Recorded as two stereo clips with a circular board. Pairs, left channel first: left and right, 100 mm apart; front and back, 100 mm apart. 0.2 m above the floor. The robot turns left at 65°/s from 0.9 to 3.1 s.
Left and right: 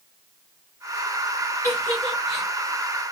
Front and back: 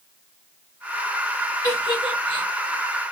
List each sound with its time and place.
1.6 s a giggle: 40° left, 1.7 m; by 2.5 s 15° right, 1.7 m